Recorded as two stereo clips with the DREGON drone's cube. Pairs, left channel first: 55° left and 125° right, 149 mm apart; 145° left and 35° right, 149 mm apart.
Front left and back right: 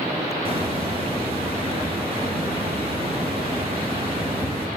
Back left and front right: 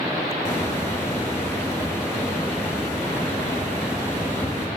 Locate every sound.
0.5 s a hiss: 150° right, 0.7 m